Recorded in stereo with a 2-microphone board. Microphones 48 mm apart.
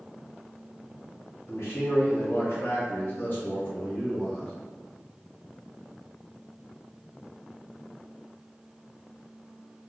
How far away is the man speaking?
About 1.4 m.